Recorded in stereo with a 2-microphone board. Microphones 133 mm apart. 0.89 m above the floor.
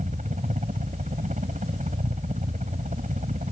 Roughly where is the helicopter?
Right.